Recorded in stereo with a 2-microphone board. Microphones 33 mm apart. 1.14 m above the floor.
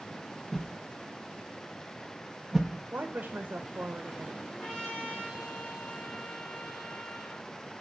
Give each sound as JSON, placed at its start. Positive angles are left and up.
{"t": 0.5, "sound": "a whoosh", "side_deg": 0, "distance_m": 1.3}
{"t": 2.9, "sound": "a woman speaking", "side_deg": -75, "distance_m": 1.1}
{"t": 4.5, "sound": "a trumpet", "side_deg": 25, "distance_m": 5.0}